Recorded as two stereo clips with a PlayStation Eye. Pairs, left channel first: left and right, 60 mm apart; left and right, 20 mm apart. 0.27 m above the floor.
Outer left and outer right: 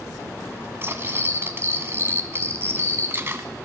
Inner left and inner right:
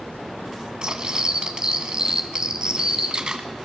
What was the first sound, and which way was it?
Cutlery clinking, 40° right (ahead or behind).